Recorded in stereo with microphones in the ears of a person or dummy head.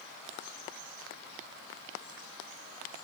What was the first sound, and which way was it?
Only background noise.